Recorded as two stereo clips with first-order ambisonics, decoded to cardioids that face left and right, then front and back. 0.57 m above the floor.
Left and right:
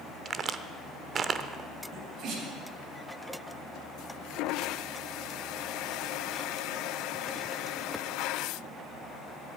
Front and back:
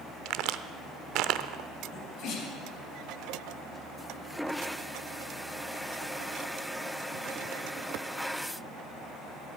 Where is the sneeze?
45° right, 3 m.